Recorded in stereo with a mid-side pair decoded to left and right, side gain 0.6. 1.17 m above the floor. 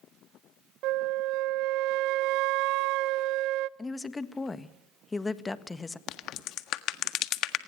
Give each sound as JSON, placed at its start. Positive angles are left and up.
{"t": 0.8, "sound": "a flute", "azimuth_deg": -70, "distance_m": 0.6}
{"t": 3.8, "sound": "a woman speaking", "azimuth_deg": 20, "distance_m": 1.6}
{"t": 6.1, "sound": "a crack", "azimuth_deg": 60, "distance_m": 1.5}